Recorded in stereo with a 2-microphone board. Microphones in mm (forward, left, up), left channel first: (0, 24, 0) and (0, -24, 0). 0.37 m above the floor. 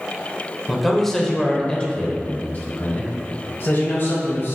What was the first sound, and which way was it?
A man speaking, 5° right (ahead or behind).